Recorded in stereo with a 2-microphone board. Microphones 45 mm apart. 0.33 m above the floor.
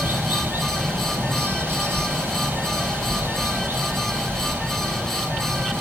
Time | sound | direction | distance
0.0 | running water | 50° right (ahead or behind) | 4 m